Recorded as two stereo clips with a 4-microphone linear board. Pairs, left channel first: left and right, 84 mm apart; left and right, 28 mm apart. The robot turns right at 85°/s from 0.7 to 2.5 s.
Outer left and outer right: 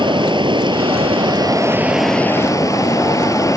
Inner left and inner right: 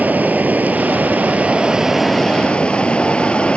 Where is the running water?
115° right; by 3.6 s 40° left.